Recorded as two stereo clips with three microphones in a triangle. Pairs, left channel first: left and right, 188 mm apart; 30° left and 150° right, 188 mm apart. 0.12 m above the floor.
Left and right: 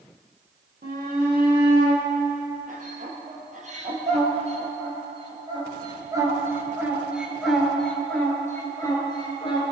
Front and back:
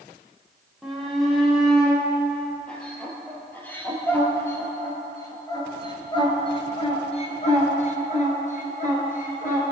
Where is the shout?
60° right, 4.5 m; by 9.7 s 45° left, 2.5 m.